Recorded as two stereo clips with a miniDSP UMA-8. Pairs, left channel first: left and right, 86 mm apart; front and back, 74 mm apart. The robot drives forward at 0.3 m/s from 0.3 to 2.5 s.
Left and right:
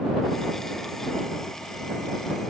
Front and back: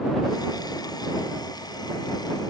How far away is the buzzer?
No buzzer in this recording.